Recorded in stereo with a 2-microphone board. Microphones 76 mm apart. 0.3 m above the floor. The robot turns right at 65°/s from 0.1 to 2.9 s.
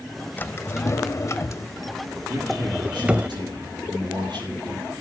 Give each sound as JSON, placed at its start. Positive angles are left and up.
{"t": 0.4, "sound": "a drawer", "side_deg": 25, "distance_m": 0.5}
{"t": 2.3, "sound": "a man speaking", "azimuth_deg": -150, "distance_m": 6.5}